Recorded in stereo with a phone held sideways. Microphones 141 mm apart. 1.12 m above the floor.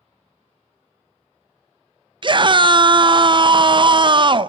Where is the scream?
35° right (ahead or behind), 0.5 m.